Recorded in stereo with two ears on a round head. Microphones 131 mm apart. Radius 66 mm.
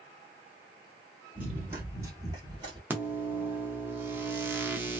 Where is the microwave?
15° right (ahead or behind), 0.6 m.